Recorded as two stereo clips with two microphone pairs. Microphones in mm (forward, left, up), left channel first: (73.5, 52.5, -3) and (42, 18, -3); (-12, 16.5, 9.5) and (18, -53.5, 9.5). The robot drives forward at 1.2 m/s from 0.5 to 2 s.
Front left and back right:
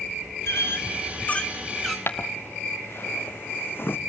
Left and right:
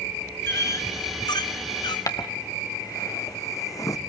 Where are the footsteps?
75° left, 2 m.